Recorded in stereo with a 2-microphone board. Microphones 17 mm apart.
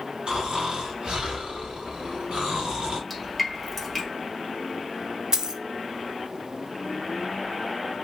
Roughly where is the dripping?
Centre.